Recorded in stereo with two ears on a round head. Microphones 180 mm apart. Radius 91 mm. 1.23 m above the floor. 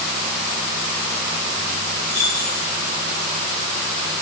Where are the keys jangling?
20° right (ahead or behind), 5.5 m.